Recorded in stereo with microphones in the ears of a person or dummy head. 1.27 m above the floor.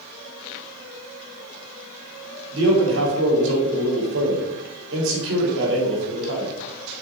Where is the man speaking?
70° right (ahead or behind), 3.5 m.